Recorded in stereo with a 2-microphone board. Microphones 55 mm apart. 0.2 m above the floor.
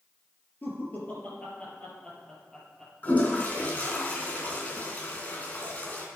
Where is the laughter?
40° left (ahead or behind), 4.5 m; by 4.0 s centre (ahead or behind), 6.5 m.